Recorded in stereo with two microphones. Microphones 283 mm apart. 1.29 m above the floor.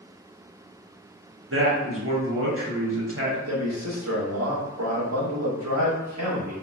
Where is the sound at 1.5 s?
50° right (ahead or behind), 1.2 m.